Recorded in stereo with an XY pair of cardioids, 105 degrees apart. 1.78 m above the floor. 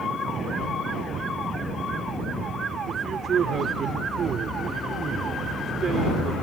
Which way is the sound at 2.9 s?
50° right.